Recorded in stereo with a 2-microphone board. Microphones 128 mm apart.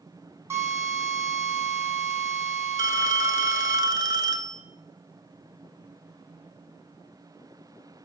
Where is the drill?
20° right (ahead or behind), 1.8 m.